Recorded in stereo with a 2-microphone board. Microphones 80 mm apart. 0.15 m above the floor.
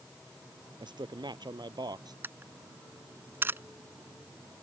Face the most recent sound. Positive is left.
turn(degrees=-30)  # may be behind; listen again after turning